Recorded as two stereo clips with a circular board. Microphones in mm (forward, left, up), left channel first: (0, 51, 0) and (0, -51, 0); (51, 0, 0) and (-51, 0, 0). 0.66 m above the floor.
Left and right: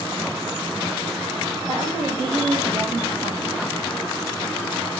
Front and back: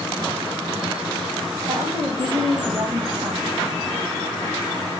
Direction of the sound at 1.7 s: 120° right.